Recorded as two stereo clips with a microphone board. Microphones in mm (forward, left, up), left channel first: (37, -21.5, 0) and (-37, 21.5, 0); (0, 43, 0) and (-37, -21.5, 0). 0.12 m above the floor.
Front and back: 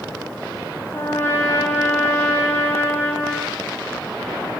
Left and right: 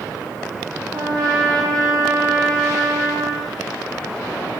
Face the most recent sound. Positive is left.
turn(degrees=-90)